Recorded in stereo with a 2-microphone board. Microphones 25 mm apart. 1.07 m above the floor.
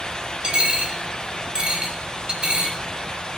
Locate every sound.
0.4 s a dropped coin: 45° right (ahead or behind), 2.5 m